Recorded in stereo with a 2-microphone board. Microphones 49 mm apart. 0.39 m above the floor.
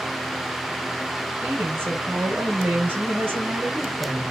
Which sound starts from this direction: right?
A woman speaking, at 1.4 s.